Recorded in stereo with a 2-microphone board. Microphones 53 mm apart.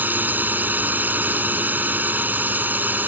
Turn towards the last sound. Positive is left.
turn(degrees=-35)  # may be behind; listen again after turning